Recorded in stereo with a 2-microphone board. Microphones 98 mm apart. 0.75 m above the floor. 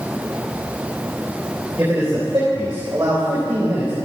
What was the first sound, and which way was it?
A man speaking, 25° right (ahead or behind).